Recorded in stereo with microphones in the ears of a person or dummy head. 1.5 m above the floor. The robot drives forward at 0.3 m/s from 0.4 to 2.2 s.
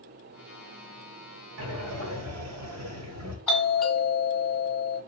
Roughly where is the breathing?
Right.